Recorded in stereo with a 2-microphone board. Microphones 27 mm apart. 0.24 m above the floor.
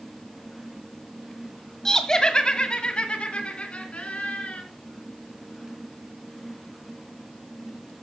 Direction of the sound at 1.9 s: 20° left (ahead or behind).